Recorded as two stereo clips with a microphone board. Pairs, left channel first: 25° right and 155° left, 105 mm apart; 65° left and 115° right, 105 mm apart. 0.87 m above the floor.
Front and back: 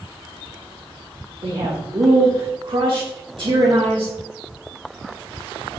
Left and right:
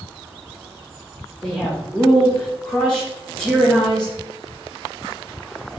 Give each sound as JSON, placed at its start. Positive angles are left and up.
{"t": 1.4, "sound": "a man speaking", "azimuth_deg": 150, "distance_m": 0.9}